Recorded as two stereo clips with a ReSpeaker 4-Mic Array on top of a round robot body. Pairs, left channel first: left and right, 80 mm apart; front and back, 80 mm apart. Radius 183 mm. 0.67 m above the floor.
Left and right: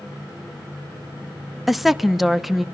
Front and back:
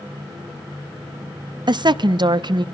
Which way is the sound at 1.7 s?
175° right.